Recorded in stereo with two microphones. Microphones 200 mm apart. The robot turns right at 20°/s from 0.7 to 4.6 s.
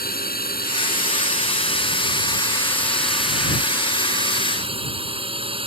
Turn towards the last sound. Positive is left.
turn(degrees=-150)